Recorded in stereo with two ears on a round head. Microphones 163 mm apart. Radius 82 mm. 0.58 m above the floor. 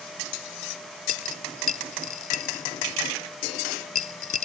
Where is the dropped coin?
40° left (ahead or behind).